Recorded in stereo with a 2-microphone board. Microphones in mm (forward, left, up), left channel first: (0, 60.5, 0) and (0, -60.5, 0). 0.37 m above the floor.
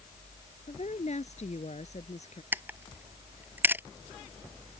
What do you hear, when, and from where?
0.7 s a woman speaking: 70° left (ahead or behind)
2.5 s a camera shutter: 15° right (ahead or behind)